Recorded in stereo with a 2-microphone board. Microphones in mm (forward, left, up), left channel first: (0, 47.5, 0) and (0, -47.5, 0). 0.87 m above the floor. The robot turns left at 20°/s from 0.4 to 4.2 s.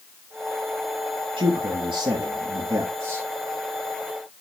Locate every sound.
1.4 s a man speaking: 100° right, 1.3 m; by 3.3 s 140° right, 1.3 m